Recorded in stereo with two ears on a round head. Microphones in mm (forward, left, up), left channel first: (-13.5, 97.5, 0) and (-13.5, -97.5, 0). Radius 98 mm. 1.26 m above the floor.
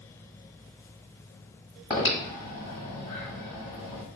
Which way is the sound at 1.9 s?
20° left (ahead or behind).